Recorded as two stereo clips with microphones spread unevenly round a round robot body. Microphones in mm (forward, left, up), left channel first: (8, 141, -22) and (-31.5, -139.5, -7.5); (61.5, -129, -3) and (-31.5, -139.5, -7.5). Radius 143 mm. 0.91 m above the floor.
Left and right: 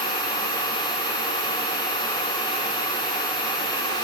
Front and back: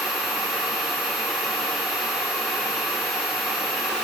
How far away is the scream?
I don't hear a scream.